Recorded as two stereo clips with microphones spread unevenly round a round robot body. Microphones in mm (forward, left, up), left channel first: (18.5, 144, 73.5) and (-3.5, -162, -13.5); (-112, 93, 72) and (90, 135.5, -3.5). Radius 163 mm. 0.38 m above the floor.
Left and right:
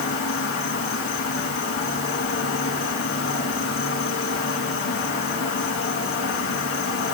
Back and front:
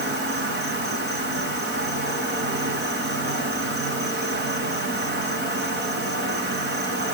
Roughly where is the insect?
Ahead left.